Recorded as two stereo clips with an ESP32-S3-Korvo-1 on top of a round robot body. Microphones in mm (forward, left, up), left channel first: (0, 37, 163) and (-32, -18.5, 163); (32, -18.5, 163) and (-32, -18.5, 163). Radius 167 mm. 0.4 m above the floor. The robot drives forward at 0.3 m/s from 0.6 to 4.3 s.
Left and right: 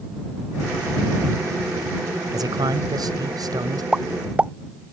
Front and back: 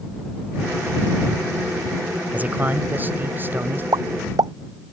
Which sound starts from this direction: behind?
A pop, at 3.9 s.